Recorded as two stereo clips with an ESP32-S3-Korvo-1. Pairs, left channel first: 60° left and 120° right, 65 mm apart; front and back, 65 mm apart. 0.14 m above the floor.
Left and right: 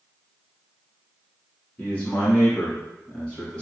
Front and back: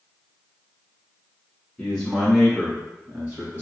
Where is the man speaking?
65° left, 1.8 m; by 3.6 s 130° left, 2.5 m.